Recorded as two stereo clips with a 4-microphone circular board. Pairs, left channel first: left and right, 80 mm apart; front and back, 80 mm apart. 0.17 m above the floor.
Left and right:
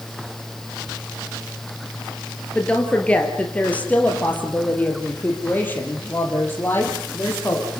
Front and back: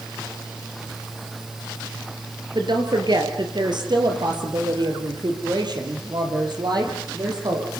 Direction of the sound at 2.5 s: 165° left.